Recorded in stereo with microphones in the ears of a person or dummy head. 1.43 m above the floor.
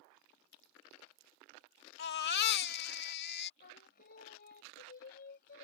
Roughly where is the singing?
Left.